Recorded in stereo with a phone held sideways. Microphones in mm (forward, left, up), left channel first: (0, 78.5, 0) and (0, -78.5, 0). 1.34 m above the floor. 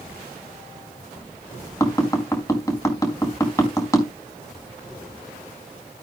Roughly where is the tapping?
Centre.